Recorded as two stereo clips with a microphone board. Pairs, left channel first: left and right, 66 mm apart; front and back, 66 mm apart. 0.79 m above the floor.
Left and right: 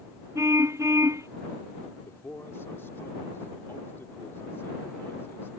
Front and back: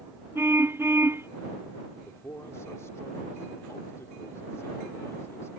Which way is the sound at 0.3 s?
130° right.